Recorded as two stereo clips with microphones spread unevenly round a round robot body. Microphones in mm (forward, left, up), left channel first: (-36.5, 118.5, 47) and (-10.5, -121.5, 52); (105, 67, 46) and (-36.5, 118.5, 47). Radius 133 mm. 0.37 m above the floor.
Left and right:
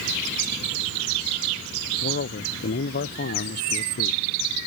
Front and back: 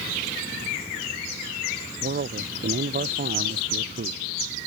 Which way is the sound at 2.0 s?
145° left.